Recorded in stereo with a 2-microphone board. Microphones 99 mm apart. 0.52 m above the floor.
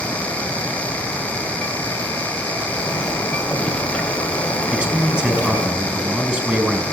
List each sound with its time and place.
2.7 s a zipper: 10° left (ahead or behind), 2.5 m
4.7 s a man speaking: 15° right (ahead or behind), 4.5 m